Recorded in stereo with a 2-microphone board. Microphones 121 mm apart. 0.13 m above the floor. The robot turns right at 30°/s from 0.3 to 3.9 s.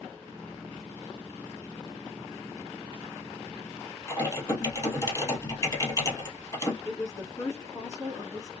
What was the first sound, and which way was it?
Typing on a keyboard, 30° left (ahead or behind).